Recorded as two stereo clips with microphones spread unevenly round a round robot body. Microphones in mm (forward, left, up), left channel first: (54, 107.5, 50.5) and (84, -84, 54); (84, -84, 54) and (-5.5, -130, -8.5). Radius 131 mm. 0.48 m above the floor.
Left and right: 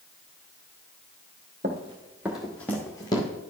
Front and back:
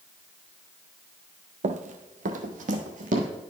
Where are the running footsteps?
130° right, 0.6 m; by 3.3 s 170° left, 1.2 m.